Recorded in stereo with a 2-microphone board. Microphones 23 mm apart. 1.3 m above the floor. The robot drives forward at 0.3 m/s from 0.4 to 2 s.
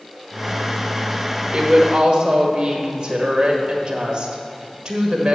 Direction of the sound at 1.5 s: 35° right (ahead or behind).